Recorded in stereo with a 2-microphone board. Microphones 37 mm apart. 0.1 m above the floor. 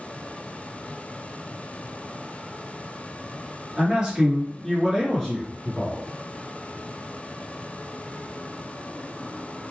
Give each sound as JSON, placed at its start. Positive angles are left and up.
{"t": 3.8, "sound": "a man speaking", "side_deg": -30, "distance_m": 1.7}